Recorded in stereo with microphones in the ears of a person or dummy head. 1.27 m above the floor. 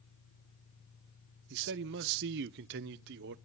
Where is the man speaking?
60° right (ahead or behind), 0.5 m.